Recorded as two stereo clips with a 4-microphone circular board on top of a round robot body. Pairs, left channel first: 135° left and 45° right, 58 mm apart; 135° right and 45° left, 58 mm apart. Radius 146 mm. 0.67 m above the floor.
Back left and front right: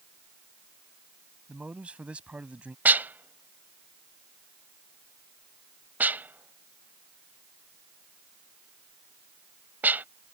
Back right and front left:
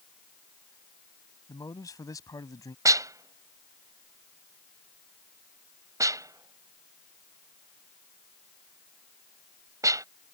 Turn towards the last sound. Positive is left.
turn(degrees=15)